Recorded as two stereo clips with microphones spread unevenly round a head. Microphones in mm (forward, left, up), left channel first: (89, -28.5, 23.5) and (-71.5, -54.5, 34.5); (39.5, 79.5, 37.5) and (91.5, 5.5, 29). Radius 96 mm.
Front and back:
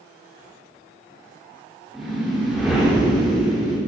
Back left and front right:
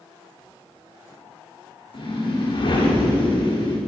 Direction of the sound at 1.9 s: 95° left.